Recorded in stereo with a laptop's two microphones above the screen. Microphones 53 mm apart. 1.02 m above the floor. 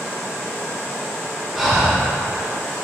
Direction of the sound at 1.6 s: 5° right (ahead or behind).